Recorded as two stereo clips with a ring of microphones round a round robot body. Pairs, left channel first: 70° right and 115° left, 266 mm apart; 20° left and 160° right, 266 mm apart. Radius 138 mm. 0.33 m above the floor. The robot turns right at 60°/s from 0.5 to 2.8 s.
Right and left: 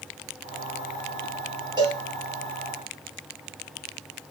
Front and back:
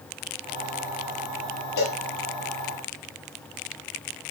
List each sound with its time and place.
1.8 s a cowbell: 35° left, 5 m; by 2.0 s 50° left, 5 m